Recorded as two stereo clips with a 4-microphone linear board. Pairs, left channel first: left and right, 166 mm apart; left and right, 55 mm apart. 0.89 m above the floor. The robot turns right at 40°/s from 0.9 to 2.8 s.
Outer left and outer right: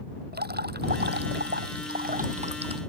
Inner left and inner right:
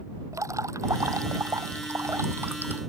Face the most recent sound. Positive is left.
turn(degrees=-30)